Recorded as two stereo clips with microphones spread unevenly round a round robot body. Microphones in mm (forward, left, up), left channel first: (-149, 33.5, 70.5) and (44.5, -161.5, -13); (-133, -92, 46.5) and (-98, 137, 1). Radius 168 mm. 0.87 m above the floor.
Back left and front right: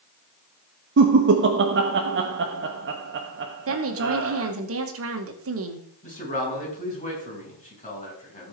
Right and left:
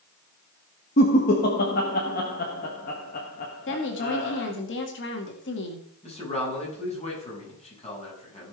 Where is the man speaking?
160° right, 7 m.